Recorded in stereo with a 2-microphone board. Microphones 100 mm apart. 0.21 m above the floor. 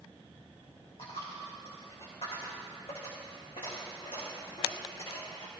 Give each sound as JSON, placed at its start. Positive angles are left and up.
{"t": 1.0, "sound": "a dropped coin", "side_deg": 70, "distance_m": 3.0}